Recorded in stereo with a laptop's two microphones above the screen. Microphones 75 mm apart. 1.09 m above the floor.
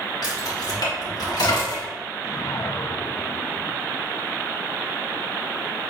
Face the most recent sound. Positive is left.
turn(degrees=50)  # may be behind; listen again after turning